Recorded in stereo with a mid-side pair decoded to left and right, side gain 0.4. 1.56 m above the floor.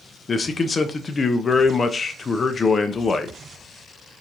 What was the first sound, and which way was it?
A man speaking, 35° left.